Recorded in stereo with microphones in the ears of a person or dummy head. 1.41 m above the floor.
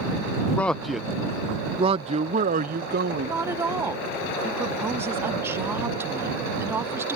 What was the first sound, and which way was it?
A man speaking, 15° left (ahead or behind).